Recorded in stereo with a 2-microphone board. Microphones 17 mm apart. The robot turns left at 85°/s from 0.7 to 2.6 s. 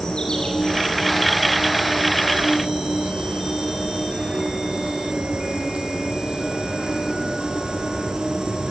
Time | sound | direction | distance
0.0 | an insect | 45° left | 7.5 m